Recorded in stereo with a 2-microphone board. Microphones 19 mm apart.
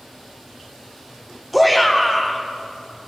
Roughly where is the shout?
Centre.